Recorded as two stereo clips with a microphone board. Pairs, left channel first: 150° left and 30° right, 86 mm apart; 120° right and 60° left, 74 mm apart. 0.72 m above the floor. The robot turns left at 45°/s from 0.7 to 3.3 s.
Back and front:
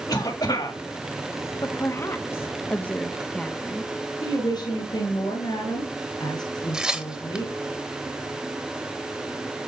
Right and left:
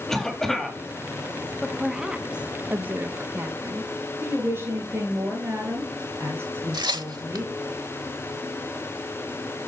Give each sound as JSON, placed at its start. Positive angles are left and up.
{"t": 0.1, "sound": "a cough", "azimuth_deg": 155, "distance_m": 1.5}
{"t": 1.6, "sound": "a woman speaking", "azimuth_deg": 155, "distance_m": 1.0}
{"t": 4.2, "sound": "a woman speaking", "azimuth_deg": 120, "distance_m": 5.5}
{"t": 6.7, "sound": "tearing paper", "azimuth_deg": 50, "distance_m": 1.0}